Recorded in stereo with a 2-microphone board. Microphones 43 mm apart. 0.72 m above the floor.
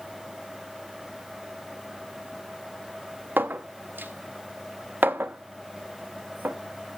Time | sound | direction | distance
3.4 | a clink | 55° right (ahead or behind) | 0.6 m